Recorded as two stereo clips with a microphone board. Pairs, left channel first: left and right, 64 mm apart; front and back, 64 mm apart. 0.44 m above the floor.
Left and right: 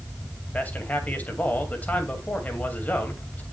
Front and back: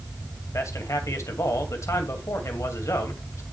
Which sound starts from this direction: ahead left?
A man speaking, at 0.5 s.